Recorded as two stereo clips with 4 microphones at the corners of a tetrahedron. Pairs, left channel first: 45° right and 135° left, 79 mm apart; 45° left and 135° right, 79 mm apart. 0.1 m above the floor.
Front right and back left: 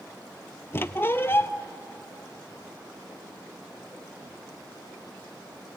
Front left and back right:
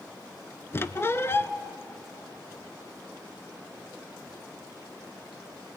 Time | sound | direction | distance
0.7 | a squeak | straight ahead | 0.6 m